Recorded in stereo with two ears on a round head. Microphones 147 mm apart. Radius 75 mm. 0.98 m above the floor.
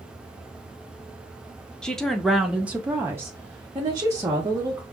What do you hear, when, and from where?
1.8 s a woman speaking: 5° left (ahead or behind), 0.7 m; by 4.8 s 20° right (ahead or behind), 1.4 m